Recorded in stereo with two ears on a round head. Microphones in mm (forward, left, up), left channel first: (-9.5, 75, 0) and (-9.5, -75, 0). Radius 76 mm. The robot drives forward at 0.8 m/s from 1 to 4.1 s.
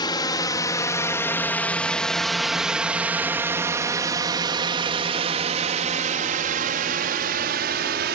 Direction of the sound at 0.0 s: 25° left (ahead or behind).